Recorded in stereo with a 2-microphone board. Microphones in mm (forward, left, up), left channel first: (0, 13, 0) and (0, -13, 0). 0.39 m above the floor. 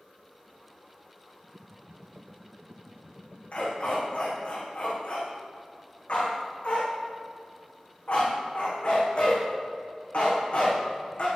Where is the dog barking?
45° left (ahead or behind), 6 m.